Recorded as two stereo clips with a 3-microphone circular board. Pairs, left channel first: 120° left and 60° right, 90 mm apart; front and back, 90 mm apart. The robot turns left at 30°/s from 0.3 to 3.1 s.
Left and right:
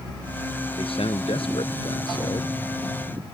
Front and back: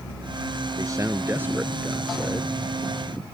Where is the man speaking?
130° left; by 2.6 s 75° left.